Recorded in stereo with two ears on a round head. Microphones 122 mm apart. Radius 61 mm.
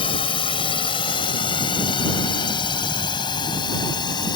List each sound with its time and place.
0.0 s a drone: 40° left (ahead or behind); by 4.3 s 35° left (ahead or behind)